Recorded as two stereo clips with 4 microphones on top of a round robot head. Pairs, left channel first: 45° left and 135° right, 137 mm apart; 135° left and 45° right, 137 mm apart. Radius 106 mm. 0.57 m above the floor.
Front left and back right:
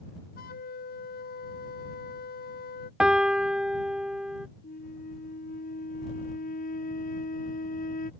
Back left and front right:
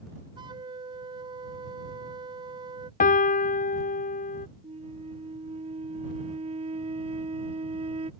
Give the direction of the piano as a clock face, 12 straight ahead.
7 o'clock.